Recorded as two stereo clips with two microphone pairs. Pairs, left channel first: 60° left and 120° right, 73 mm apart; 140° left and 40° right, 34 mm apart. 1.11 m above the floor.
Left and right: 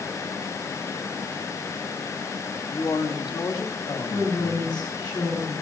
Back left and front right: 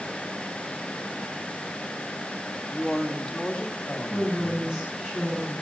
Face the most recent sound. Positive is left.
turn(degrees=35)